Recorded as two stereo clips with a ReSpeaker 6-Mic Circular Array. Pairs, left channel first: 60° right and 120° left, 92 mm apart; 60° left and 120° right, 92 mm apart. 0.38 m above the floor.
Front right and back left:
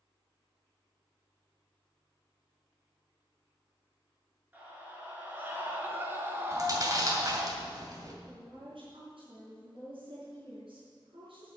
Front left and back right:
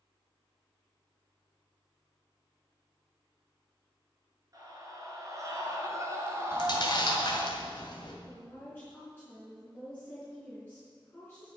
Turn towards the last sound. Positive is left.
turn(degrees=130)